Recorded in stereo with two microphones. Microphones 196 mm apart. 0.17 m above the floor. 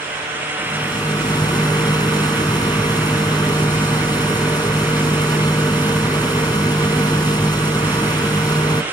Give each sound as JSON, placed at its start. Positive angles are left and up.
{"t": 0.6, "sound": "a rattle", "side_deg": 20, "distance_m": 1.0}